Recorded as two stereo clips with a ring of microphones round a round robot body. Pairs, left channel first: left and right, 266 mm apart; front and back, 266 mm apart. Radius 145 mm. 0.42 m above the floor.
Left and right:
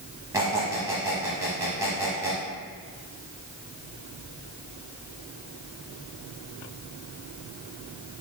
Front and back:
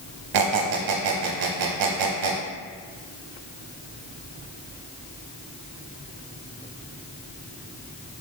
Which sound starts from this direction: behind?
A squeak, at 0.3 s.